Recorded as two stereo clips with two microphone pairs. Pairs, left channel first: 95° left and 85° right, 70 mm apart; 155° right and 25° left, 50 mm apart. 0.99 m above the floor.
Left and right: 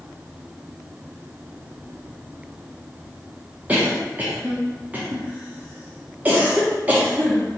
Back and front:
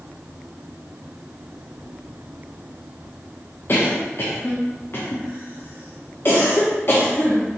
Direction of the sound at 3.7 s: 150° right.